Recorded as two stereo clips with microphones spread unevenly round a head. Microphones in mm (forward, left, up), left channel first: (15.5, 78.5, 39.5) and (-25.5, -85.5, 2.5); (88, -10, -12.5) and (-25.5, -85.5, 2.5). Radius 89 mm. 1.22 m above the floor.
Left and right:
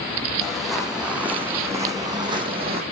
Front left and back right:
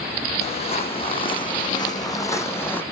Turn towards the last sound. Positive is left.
turn(degrees=-45)